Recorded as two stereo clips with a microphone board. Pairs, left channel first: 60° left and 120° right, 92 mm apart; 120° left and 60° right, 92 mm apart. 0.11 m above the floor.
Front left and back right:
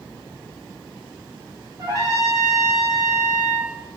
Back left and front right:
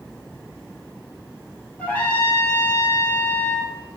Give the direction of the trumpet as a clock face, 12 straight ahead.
5 o'clock.